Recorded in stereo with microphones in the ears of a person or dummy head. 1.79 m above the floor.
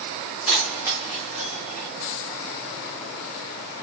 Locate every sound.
0.5 s keys jangling: centre (ahead or behind), 1.0 m